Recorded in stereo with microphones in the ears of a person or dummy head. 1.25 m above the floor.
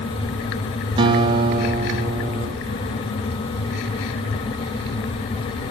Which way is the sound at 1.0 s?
30° right (ahead or behind).